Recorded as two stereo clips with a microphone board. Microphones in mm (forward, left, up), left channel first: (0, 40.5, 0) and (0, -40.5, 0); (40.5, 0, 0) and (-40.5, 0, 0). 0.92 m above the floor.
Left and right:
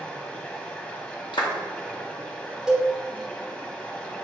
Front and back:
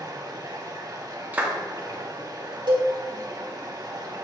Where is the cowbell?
170° right, 1.7 m.